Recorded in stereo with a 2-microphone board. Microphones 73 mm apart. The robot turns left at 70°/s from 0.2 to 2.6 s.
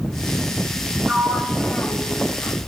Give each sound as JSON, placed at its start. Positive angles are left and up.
{"t": 1.1, "sound": "a sliding door", "side_deg": -30, "distance_m": 1.8}